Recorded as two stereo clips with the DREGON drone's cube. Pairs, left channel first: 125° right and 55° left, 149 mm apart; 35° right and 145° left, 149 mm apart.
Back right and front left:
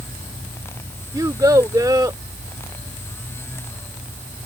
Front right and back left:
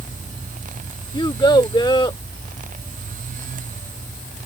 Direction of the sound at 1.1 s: 5° left.